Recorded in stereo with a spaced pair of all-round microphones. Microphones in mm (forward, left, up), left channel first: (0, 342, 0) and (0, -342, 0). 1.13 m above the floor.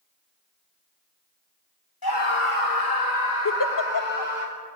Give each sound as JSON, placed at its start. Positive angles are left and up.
{"t": 2.0, "sound": "a scream", "side_deg": 30, "distance_m": 1.9}
{"t": 3.5, "sound": "a giggle", "side_deg": 30, "distance_m": 0.7}